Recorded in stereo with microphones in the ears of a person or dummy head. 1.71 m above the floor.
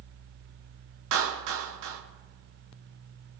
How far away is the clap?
About 3 m.